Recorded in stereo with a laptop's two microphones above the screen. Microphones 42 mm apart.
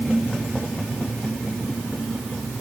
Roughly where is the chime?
No chime in this recording.